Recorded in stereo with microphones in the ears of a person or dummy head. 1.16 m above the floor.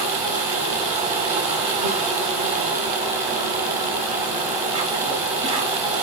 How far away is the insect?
About 1.2 m.